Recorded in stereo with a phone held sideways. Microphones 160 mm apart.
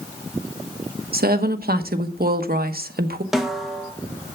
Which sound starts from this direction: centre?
A snare drum, at 3.3 s.